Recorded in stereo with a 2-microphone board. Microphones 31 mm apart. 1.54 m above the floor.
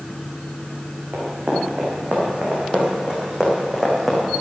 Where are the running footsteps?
55° right (ahead or behind), 5.5 m; by 4.2 s 5° right (ahead or behind), 4.5 m.